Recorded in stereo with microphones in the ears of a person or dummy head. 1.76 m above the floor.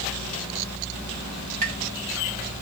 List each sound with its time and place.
1.6 s tapping: 35° right (ahead or behind), 2.5 m